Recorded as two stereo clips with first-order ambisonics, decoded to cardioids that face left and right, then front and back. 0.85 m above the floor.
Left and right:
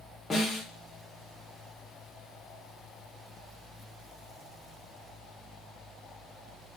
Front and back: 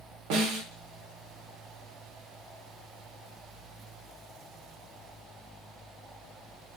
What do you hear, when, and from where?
0.3 s a snare drum: 170° left, 1.0 m